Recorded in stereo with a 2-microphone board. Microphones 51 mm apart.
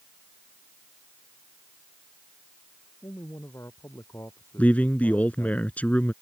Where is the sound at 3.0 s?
65° left (ahead or behind).